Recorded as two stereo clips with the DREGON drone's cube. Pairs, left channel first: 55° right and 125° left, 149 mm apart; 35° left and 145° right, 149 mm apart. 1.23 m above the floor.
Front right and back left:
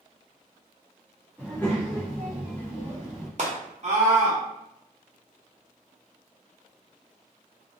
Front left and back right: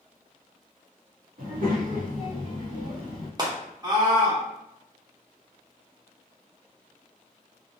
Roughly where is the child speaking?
Behind right.